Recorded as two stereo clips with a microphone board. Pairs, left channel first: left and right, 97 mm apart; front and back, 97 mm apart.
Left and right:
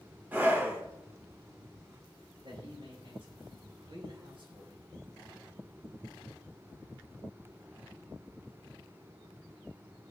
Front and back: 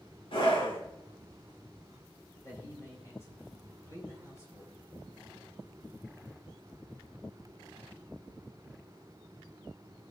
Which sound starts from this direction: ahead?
A scream, at 0.3 s.